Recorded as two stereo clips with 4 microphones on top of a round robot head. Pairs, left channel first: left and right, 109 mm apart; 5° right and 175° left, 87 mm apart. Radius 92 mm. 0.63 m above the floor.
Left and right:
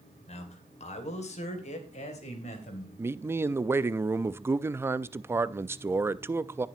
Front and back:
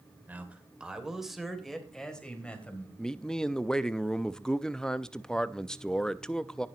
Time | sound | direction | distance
0.3 | a man speaking | 105° left | 2.5 m
3.0 | a man speaking | 75° right | 0.5 m